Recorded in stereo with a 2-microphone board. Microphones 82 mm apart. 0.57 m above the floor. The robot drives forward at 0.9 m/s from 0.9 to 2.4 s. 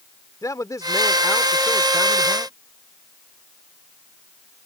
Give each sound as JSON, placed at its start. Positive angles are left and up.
{"t": 0.4, "sound": "a man speaking", "side_deg": 45}